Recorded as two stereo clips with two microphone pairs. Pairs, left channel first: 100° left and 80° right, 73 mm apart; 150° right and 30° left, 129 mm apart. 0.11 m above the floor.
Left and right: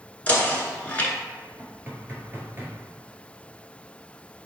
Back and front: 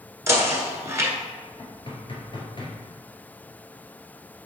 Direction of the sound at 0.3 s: 60° left.